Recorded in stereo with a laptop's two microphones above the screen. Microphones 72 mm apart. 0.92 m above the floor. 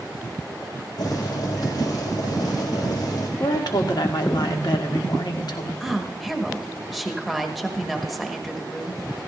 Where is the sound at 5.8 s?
Centre (ahead or behind), 1.2 m.